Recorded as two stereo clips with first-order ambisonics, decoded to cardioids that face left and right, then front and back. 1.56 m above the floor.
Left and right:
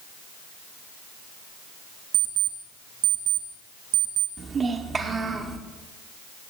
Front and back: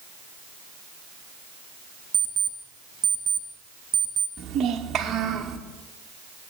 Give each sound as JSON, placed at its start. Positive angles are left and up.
{"t": 2.1, "sound": "an alarm clock", "azimuth_deg": -115, "distance_m": 1.7}
{"t": 4.4, "sound": "a child speaking", "azimuth_deg": -140, "distance_m": 0.9}